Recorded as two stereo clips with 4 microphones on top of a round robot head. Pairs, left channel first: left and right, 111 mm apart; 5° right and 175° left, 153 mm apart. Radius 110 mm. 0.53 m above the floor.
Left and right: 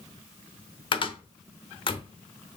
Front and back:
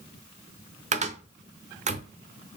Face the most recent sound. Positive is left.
turn(degrees=135)